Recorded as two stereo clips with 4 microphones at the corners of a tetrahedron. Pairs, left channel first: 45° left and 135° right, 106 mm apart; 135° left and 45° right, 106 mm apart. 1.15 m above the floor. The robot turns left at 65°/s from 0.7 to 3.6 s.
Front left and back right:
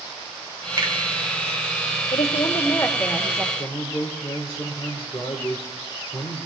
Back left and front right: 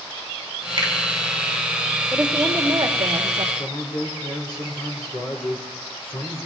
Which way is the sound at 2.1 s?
35° left.